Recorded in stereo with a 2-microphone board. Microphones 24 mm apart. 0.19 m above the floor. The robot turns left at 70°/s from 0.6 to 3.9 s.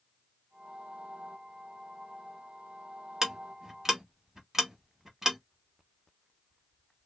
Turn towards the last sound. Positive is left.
turn(degrees=-20)  # may be behind; listen again after turning